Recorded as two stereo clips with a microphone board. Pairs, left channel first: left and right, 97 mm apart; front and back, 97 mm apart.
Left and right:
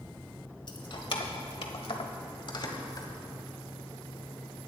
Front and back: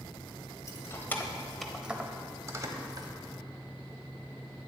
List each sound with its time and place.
0.7 s keys jangling: 55° left, 1.4 m; by 3.1 s 135° left, 1.6 m